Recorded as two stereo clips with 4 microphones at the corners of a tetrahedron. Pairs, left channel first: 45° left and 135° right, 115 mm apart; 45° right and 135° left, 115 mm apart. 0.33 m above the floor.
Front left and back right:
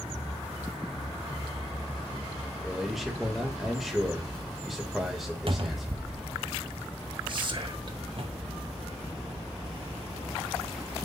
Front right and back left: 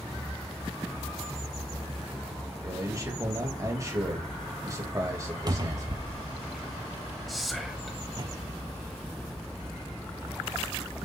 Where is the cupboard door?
175° right, 0.6 m.